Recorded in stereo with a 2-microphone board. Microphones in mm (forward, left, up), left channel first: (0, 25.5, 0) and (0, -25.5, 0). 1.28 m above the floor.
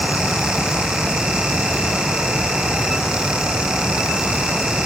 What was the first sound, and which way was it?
Only background noise.